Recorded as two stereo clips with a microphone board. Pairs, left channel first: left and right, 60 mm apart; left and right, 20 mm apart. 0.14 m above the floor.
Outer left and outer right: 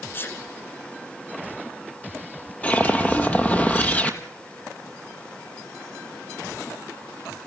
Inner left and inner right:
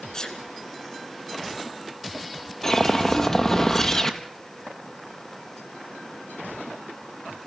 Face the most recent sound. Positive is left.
turn(degrees=25)  # may be behind; listen again after turning